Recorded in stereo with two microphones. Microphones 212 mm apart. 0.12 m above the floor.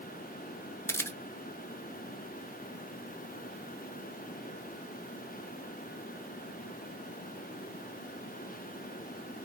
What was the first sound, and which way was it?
A camera shutter, 10° left (ahead or behind).